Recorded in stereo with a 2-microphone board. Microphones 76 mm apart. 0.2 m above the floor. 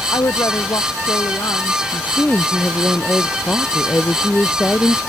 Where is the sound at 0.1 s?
55° left (ahead or behind); by 1.8 s 50° left (ahead or behind).